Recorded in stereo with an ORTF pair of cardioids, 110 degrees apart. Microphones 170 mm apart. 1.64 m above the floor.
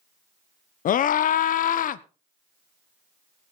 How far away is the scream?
About 1.1 m.